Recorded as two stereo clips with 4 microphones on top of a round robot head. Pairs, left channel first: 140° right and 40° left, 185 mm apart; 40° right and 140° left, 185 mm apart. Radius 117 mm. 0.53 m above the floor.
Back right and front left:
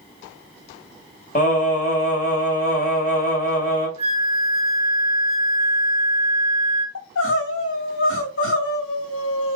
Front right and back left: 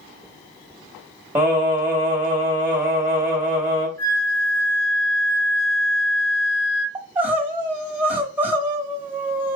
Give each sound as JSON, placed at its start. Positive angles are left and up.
{"t": 1.4, "sound": "singing", "azimuth_deg": -145, "distance_m": 1.6}
{"t": 4.0, "sound": "a flute", "azimuth_deg": -15, "distance_m": 2.0}
{"t": 7.0, "sound": "crying", "azimuth_deg": -135, "distance_m": 1.5}